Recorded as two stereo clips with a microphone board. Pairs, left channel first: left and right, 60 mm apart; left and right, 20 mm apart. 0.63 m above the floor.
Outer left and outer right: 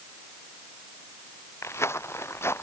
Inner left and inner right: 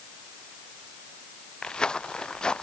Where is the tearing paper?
I don't hear tearing paper.